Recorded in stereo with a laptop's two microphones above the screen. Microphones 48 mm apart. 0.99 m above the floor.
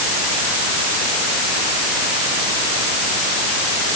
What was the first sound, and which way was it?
Only background noise.